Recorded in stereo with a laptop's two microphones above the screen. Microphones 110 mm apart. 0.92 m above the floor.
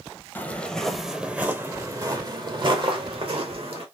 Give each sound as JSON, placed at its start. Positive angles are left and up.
{"t": 0.3, "sound": "footsteps", "side_deg": 20, "distance_m": 1.0}